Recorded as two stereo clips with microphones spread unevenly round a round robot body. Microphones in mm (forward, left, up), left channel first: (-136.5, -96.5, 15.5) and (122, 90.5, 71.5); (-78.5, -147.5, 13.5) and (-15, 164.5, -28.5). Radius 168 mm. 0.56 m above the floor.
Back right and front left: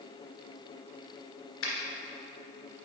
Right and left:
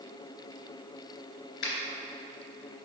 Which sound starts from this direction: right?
A finger snap, at 1.6 s.